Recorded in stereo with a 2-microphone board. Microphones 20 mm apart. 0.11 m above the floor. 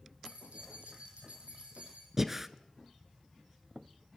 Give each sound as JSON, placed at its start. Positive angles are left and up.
{"t": 0.2, "sound": "keys jangling", "side_deg": -75, "distance_m": 4.0}
{"t": 2.2, "sound": "breathing", "side_deg": -15, "distance_m": 0.7}